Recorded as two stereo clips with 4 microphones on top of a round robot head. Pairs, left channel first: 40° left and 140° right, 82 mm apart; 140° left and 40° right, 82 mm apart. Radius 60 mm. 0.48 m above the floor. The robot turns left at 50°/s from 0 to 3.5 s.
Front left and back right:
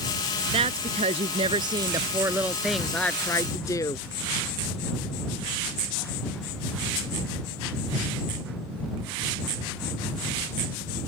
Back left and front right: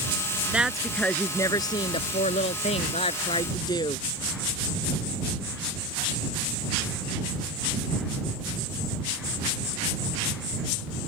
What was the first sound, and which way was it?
A woman speaking, 120° right.